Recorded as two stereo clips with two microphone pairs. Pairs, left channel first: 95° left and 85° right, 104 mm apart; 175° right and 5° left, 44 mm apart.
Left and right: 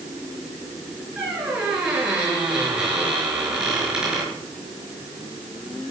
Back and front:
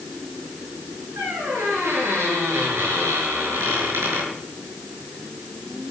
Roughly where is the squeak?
Ahead.